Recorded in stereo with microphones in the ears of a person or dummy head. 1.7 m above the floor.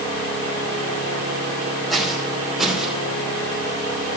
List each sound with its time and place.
1.9 s footsteps: 5° left (ahead or behind), 5 m; by 3.0 s centre (ahead or behind), 4.5 m